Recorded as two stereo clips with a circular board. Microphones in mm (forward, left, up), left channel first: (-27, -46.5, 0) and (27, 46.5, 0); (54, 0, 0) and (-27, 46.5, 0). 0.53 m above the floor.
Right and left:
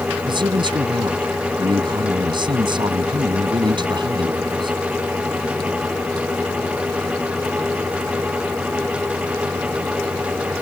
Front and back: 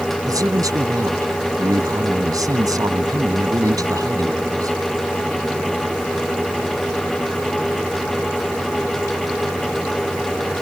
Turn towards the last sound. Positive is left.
turn(degrees=100)